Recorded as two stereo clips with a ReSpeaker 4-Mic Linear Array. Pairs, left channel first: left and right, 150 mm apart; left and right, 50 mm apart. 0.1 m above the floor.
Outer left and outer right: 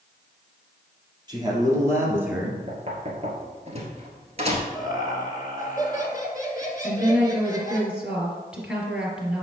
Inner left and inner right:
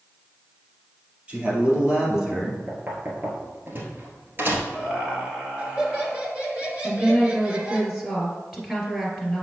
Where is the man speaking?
25° right (ahead or behind), 3 m; by 2.6 s 5° right (ahead or behind), 1.9 m.